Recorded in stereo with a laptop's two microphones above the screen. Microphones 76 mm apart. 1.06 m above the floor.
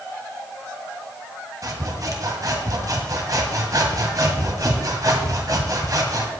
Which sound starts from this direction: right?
Sawing, at 1.6 s.